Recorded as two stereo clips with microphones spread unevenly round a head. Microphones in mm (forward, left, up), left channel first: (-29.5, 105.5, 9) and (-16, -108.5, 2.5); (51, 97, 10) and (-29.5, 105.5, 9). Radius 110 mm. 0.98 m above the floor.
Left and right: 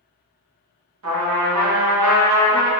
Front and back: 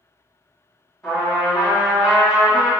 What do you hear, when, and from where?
1.0 s a trumpet: 80° right, 1.0 m